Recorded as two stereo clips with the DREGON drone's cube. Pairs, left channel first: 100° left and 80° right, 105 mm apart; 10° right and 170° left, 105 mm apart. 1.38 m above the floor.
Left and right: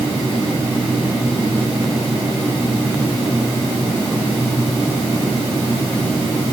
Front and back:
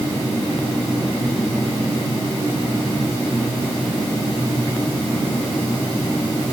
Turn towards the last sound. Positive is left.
No sound to turn to.